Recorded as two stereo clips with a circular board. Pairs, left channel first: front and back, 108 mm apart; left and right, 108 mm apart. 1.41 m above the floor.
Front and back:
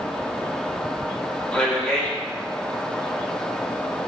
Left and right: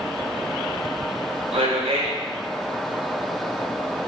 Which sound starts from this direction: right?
A man speaking, at 1.5 s.